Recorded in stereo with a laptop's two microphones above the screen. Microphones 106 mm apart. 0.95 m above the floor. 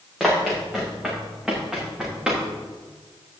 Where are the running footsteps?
5° right (ahead or behind), 5.5 m; by 2.4 s 10° right (ahead or behind), 6.5 m.